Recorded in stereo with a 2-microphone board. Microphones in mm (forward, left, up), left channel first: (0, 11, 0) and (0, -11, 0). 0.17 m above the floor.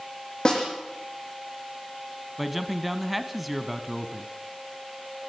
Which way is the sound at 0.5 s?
40° left (ahead or behind).